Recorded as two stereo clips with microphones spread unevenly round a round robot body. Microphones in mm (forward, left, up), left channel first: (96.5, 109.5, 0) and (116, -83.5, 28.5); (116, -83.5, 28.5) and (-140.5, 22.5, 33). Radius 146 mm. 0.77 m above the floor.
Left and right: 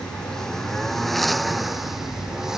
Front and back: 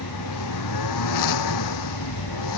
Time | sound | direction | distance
0.0 | a lawn mower | 10° left | ?